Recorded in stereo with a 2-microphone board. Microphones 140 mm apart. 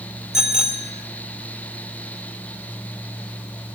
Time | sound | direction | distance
0.3 | a bicycle bell | 5° right (ahead or behind) | 2.5 m